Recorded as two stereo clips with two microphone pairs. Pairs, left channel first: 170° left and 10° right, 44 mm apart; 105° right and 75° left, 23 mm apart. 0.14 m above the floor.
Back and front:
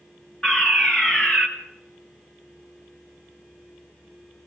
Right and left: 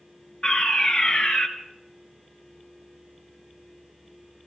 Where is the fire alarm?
125° right, 3 m.